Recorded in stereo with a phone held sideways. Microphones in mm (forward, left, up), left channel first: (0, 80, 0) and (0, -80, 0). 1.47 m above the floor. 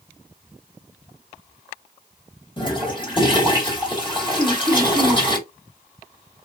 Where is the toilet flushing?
30° left (ahead or behind), 1.6 m.